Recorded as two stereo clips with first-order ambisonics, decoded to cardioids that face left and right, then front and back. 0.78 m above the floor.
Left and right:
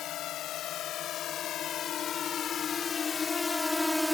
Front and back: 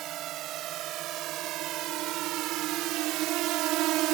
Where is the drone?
135° left; by 4.2 s straight behind.